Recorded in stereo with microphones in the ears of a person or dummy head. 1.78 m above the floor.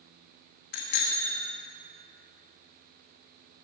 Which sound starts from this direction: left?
A bicycle bell, at 0.7 s.